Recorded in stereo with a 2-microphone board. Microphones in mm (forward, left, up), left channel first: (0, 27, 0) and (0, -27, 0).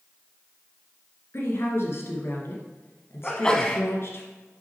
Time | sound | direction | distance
1.3 | a woman speaking | 50° left (ahead or behind) | 2 m
3.2 | a sneeze | 15° left (ahead or behind) | 1.2 m